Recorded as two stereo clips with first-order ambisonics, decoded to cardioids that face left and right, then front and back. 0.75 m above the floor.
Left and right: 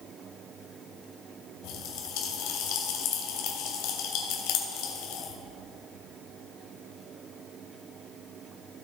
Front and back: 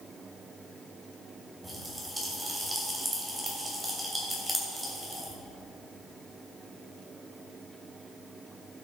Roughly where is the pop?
Left.